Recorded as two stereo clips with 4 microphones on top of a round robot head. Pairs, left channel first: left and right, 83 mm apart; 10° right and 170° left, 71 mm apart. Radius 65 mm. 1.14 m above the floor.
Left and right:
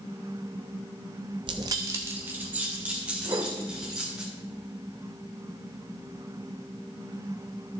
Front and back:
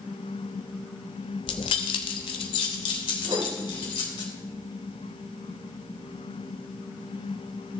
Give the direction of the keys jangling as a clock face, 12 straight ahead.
1 o'clock.